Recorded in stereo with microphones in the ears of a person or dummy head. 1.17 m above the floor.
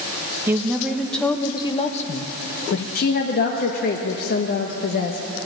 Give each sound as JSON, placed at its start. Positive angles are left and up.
{"t": 0.5, "sound": "a woman speaking", "side_deg": -20, "distance_m": 1.3}
{"t": 3.0, "sound": "a woman speaking", "side_deg": 45, "distance_m": 1.2}